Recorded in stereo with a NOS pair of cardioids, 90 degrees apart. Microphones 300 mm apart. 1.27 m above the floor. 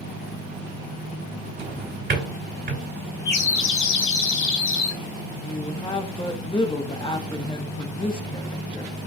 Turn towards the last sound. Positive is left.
turn(degrees=15)